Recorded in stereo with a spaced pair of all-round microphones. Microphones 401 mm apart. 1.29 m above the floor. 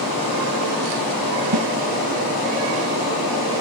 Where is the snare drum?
65° right (ahead or behind), 1.0 m.